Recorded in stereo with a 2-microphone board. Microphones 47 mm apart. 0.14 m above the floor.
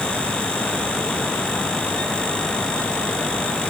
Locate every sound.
Only background noise.